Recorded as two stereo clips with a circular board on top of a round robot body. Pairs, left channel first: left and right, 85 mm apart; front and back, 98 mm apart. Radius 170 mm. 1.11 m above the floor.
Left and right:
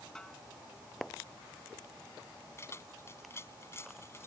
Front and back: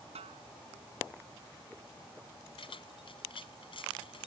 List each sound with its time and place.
0.1 s a snare drum: 175° left
2.6 s keys jangling: 30° left